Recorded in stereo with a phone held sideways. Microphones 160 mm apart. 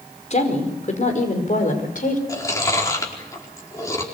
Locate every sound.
0.3 s a woman speaking: 45° left (ahead or behind), 5 m; by 2.2 s 55° left (ahead or behind), 5.5 m
2.3 s chewing: 20° left (ahead or behind), 4.5 m